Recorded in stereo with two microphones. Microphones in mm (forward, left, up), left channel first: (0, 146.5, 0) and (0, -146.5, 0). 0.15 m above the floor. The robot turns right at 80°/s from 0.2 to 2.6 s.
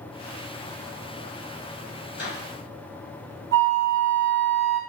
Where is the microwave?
30° left (ahead or behind), 1.2 m.